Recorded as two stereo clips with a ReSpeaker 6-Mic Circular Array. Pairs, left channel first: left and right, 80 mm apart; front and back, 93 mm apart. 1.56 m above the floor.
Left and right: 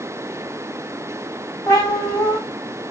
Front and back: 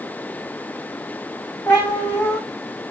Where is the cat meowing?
70° left, 1.8 m.